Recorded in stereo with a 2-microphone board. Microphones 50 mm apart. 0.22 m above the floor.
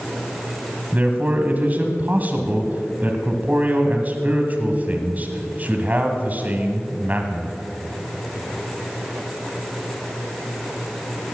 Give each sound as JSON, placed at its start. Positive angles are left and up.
{"t": 0.9, "sound": "a man speaking", "side_deg": -30, "distance_m": 1.4}